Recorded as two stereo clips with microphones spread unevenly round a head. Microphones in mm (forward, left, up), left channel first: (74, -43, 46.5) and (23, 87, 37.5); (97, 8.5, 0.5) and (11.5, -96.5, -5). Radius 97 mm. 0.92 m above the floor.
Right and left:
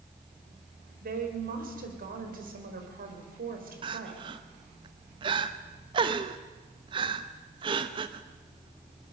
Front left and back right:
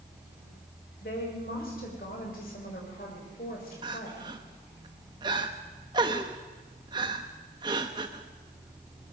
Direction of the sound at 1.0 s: 100° left.